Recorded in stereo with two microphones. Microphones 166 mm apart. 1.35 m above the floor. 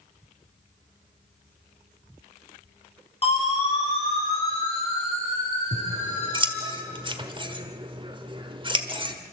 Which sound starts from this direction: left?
A siren, at 3.2 s.